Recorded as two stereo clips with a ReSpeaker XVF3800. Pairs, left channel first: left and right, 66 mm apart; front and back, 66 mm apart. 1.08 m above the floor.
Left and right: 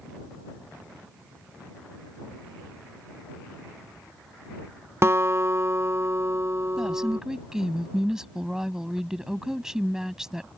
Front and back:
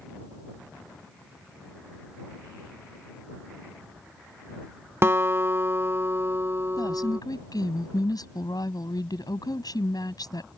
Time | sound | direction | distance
5.0 | a guitar | 135° right | ?
6.8 | a woman speaking | 10° right | ?